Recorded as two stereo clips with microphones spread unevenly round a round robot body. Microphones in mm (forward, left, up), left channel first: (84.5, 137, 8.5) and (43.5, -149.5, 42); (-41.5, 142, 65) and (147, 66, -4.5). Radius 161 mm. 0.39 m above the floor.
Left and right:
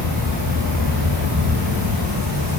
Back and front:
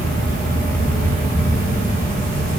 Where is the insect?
130° right, 2 m.